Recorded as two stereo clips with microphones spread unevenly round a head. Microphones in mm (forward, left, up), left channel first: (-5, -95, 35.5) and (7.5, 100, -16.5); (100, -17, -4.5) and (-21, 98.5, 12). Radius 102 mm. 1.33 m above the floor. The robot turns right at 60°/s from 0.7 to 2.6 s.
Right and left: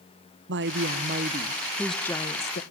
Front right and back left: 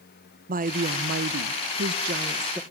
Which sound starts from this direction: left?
A woman speaking, at 0.5 s.